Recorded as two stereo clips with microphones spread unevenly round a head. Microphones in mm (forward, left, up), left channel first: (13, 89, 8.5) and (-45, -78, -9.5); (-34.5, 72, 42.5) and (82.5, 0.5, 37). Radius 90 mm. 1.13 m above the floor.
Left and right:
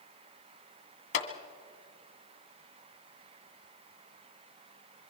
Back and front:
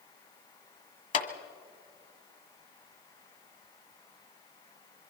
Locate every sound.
1.1 s a clap: 120° left, 1.9 m